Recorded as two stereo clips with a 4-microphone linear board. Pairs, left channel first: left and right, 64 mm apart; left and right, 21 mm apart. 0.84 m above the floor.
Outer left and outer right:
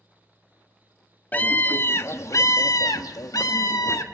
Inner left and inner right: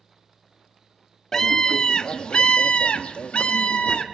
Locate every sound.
1.3 s a scream: 30° left (ahead or behind), 1.4 m; by 4.0 s 60° left (ahead or behind), 1.5 m